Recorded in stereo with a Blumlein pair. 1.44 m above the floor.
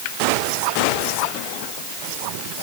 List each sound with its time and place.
Only background noise.